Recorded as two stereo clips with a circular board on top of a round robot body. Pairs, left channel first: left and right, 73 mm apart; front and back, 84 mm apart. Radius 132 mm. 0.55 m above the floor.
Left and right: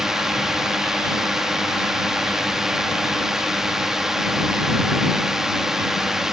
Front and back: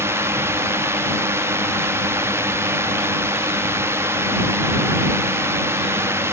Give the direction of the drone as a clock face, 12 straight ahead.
6 o'clock.